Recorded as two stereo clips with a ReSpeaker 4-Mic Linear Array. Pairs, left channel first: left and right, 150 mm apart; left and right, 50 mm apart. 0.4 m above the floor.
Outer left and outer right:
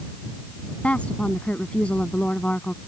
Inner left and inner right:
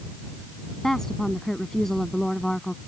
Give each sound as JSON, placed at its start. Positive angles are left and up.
{"t": 0.8, "sound": "a woman speaking", "side_deg": 10}